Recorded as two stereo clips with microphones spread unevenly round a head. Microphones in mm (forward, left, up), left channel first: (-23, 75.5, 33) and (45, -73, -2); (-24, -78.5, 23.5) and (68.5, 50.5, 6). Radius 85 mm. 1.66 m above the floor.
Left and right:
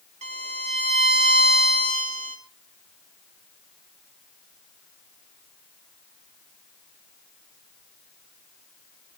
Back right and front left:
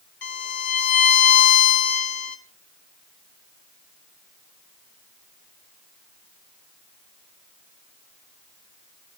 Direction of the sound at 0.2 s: 120° right.